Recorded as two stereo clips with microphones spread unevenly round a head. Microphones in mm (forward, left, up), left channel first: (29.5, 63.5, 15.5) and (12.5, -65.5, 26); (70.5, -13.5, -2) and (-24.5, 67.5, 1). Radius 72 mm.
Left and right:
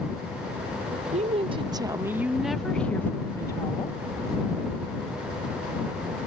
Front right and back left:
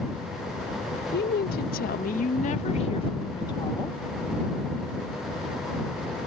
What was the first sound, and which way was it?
A woman speaking, 60° right.